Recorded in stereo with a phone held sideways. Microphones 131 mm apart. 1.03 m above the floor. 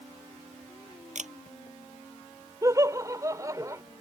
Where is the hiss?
I don't hear a hiss.